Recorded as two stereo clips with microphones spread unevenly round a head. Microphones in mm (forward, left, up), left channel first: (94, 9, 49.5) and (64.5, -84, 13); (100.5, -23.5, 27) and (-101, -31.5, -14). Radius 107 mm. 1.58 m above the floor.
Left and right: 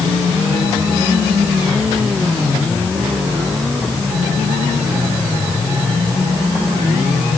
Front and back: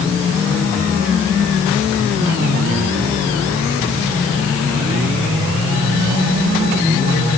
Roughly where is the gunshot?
No gunshot in this recording.